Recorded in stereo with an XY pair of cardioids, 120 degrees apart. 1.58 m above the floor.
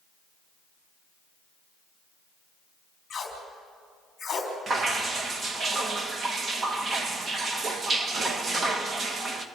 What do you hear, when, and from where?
3.1 s tape being pulled: 30° left, 4 m
4.7 s dripping: 35° right, 1.6 m